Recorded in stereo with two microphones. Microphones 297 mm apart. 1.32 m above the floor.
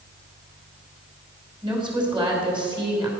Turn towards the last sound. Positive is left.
turn(degrees=-15)  # may be behind; listen again after turning